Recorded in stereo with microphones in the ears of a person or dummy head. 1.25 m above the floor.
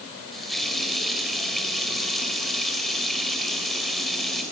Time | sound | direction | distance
0.3 | a running tap | centre (ahead or behind) | 3.5 m